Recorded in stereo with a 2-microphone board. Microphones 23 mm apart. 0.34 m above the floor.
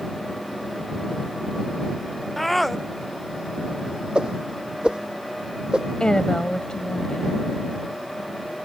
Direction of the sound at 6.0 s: 40° left (ahead or behind).